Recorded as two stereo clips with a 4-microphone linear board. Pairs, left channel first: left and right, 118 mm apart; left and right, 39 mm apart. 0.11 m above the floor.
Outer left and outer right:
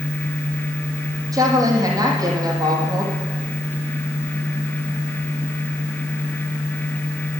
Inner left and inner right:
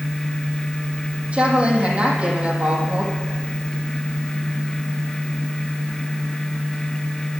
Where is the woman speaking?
30° right (ahead or behind), 4.5 m.